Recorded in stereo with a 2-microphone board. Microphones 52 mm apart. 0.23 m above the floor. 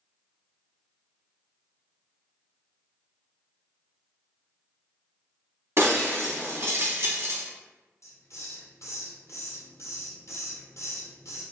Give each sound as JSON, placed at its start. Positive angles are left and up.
{"t": 5.8, "sound": "breaking glass", "side_deg": -60, "distance_m": 0.6}
{"t": 8.0, "sound": "a hiss", "side_deg": 75, "distance_m": 1.0}